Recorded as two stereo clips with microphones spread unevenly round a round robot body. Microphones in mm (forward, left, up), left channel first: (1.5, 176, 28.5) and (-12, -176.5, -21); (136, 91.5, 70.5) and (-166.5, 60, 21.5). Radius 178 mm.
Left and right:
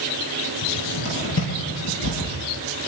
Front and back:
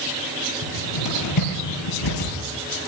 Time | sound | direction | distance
0.6 | a cupboard door | 30° left | 7.5 m